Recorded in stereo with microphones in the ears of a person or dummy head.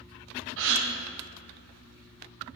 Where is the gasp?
70° right (ahead or behind), 1.1 m.